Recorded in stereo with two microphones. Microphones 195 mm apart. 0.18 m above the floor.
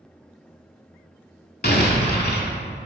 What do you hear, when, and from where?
1.6 s an explosion: 50° left (ahead or behind), 0.7 m